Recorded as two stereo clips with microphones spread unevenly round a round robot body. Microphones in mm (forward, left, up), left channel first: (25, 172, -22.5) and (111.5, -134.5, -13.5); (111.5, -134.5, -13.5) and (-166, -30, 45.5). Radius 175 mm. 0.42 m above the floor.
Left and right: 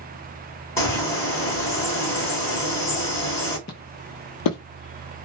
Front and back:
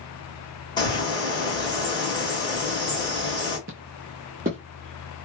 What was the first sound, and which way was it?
A bird, 30° left.